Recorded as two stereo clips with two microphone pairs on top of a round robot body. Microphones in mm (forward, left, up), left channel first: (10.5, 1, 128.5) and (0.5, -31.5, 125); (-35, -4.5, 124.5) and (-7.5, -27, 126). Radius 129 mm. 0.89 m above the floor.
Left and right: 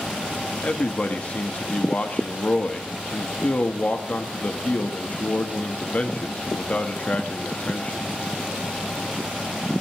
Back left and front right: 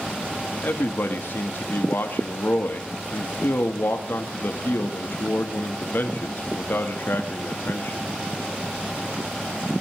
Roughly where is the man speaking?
Behind left.